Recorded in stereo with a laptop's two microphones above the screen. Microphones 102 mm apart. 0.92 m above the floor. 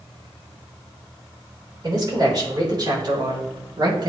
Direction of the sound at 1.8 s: 40° right (ahead or behind).